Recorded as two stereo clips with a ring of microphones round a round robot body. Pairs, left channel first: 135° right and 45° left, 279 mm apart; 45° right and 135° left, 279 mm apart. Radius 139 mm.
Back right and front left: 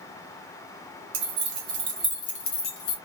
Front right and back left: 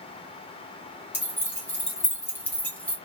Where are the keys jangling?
35° left, 1.3 m; by 3.0 s 130° right, 1.3 m.